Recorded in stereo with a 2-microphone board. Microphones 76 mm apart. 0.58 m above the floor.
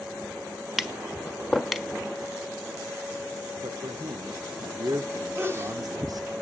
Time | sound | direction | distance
0.8 | tapping | centre (ahead or behind) | 1.3 m
3.6 | a man speaking | 55° right (ahead or behind) | 1.5 m
5.3 | a sneeze | 30° right (ahead or behind) | 3 m